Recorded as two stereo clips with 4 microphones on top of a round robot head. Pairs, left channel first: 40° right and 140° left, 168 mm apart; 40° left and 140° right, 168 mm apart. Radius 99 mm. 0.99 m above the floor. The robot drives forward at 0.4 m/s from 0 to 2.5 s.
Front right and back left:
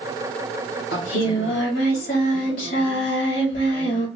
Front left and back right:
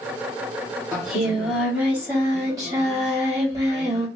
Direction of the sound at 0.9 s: 45° right.